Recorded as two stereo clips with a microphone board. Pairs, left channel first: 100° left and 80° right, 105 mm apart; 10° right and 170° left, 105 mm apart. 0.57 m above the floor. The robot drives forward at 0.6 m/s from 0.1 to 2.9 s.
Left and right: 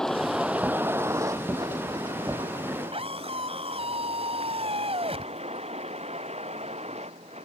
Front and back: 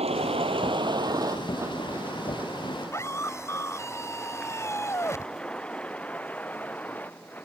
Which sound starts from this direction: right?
A scream, at 2.9 s.